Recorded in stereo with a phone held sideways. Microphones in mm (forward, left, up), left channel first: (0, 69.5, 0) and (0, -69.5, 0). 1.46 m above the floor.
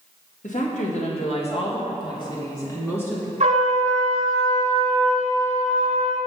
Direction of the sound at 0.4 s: 65° left (ahead or behind).